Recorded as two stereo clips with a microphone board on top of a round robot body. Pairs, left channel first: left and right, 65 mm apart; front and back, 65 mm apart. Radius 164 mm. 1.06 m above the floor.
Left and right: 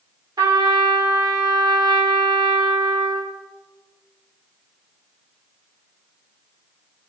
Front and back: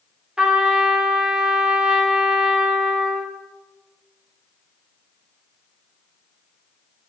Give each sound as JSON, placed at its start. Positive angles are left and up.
{"t": 0.4, "sound": "a trumpet", "azimuth_deg": -105, "distance_m": 3.0}